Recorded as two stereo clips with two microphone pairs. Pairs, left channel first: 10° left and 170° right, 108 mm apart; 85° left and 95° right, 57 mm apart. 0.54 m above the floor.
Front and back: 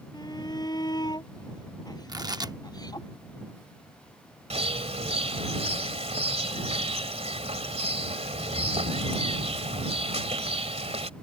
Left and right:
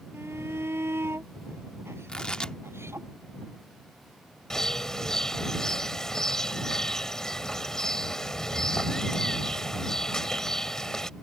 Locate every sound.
0.1 s a shout: 45° right
2.1 s tearing paper: 150° left
4.5 s a bird: 165° left